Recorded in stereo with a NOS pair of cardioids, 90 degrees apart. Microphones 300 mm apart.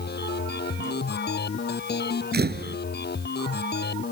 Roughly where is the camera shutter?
Ahead right.